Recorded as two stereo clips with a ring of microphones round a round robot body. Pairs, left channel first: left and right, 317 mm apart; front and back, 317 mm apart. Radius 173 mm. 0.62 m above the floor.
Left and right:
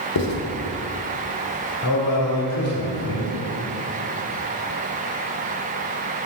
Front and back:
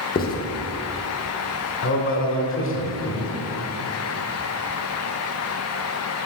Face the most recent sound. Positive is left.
turn(degrees=50)